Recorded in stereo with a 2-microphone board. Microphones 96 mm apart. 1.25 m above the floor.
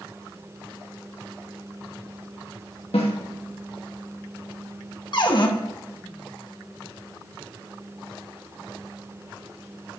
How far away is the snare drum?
About 2 m.